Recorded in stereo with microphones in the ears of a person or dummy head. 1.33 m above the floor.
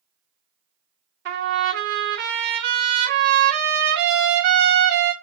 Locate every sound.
1.2 s a trumpet: 60° right (ahead or behind), 1.0 m